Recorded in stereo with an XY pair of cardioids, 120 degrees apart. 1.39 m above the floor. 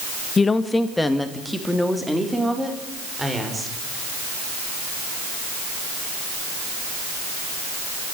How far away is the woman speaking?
About 1.5 m.